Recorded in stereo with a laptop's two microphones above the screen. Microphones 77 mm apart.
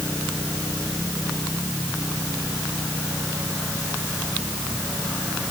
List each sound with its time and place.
Only background noise.